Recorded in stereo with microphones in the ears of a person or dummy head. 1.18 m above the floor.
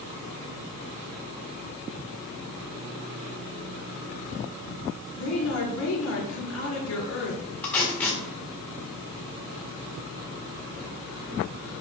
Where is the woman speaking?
70° left (ahead or behind), 3 m.